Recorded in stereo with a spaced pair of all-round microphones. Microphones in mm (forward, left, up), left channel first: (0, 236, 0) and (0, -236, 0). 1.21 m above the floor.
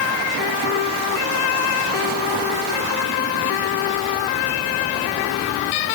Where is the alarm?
No alarm in this recording.